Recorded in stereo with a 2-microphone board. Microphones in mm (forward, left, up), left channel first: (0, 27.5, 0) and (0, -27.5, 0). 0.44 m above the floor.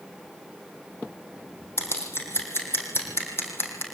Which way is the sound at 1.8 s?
50° left (ahead or behind).